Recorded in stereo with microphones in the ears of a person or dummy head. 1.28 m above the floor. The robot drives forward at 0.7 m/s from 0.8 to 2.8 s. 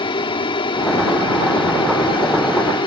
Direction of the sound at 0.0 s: 25° left (ahead or behind).